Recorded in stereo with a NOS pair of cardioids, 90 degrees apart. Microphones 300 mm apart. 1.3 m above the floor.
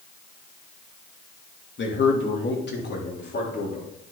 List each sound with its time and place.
1.8 s a man speaking: 40° left, 2.5 m; by 3.9 s 35° left, 4 m